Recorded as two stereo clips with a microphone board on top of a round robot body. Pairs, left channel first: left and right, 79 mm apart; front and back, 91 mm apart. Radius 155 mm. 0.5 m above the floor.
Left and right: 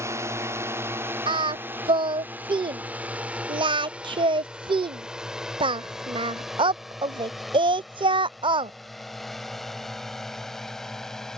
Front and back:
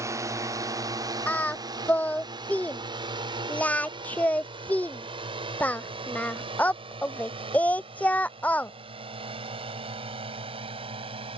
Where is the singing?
75° right.